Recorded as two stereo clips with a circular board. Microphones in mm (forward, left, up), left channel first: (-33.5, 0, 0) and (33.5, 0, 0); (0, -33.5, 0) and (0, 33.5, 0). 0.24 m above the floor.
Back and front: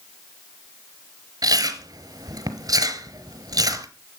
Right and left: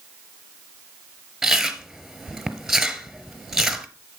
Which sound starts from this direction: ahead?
Chewing, at 1.4 s.